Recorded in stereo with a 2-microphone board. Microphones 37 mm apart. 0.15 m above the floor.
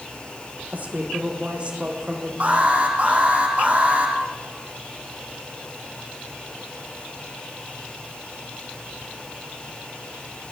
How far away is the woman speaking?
About 7 m.